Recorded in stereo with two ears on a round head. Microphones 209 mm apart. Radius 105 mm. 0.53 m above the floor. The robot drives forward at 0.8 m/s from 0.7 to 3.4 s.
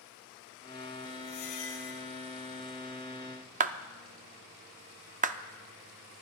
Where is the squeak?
70° left (ahead or behind), 2.5 m; by 2.0 s 60° left (ahead or behind), 3 m.